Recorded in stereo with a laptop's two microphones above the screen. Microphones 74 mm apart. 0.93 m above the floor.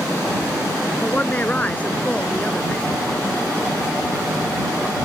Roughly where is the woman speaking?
Left.